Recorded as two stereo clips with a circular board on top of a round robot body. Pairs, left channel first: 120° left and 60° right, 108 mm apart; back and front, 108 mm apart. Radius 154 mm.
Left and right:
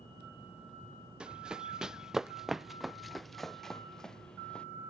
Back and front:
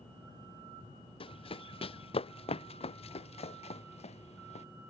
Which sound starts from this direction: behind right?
Running footsteps, at 1.2 s.